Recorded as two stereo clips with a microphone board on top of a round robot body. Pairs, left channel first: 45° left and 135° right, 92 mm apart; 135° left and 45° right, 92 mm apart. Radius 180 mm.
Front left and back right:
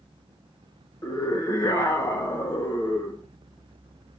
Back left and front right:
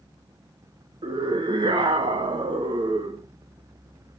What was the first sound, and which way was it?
A scream, 10° right.